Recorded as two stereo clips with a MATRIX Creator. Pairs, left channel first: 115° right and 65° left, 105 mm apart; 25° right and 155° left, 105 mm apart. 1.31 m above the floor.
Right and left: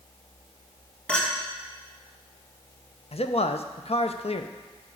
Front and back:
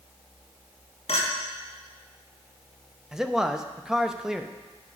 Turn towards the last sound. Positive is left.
turn(degrees=-120)